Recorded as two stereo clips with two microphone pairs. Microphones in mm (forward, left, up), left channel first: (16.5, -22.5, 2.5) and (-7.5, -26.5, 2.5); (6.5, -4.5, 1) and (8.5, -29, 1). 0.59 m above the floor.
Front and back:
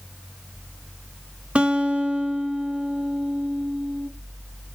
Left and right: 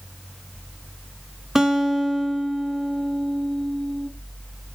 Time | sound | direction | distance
1.6 | a guitar | 150° right | 0.8 m